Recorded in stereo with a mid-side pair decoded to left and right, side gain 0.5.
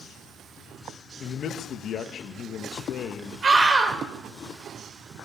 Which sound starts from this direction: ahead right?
A scream, at 3.4 s.